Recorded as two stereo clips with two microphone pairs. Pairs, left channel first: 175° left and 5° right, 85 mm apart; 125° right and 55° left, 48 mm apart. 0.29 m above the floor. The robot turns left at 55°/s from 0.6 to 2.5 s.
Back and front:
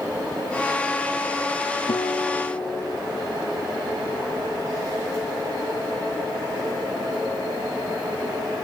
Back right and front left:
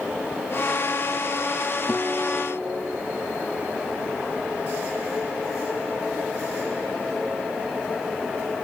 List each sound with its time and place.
1.9 s a guitar: 160° left, 1.1 m; by 3.0 s 130° left, 1.1 m